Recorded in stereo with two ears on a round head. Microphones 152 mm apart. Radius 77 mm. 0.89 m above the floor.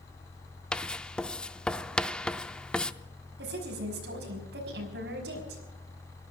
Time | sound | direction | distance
0.7 | writing | 5° left (ahead or behind) | 0.6 m
3.4 | a woman speaking | 75° right (ahead or behind) | 5.5 m